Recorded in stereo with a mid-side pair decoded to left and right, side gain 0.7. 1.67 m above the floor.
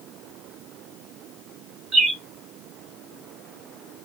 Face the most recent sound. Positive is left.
turn(degrees=-30)